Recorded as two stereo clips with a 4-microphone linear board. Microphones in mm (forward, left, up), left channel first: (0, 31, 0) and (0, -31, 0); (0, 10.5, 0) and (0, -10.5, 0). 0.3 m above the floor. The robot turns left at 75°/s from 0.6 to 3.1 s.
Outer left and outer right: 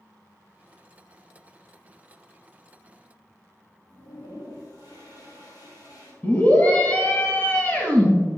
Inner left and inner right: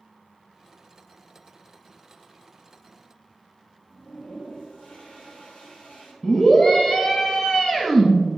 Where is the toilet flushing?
80° left, 3 m.